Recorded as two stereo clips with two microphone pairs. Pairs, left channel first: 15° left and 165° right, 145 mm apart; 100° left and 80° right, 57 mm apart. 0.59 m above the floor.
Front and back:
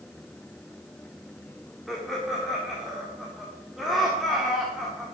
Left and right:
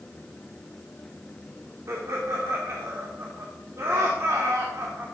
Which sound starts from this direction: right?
Laughter, at 1.9 s.